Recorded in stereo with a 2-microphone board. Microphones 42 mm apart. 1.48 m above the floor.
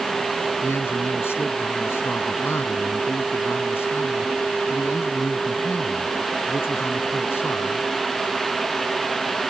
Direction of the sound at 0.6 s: 85° left.